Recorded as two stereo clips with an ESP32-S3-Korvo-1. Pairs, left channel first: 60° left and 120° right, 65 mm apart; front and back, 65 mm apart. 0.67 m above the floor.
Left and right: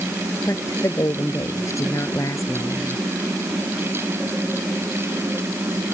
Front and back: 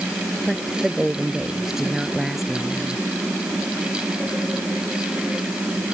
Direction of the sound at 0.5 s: 95° left.